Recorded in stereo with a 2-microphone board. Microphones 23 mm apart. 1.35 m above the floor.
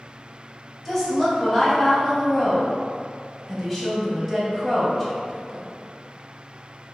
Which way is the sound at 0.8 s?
10° left (ahead or behind).